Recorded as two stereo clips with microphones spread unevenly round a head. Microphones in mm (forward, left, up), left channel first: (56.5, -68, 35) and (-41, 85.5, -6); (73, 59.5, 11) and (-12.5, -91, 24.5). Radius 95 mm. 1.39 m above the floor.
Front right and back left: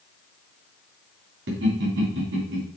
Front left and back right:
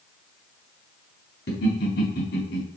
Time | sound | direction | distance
1.5 | laughter | 100° left | 3.5 m